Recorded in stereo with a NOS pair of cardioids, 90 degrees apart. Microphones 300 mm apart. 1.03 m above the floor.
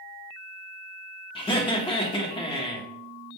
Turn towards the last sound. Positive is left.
turn(degrees=15)